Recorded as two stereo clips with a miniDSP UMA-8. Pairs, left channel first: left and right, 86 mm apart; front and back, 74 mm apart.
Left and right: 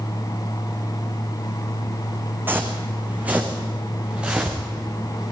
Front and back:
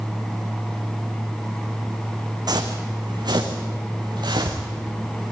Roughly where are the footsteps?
Behind right.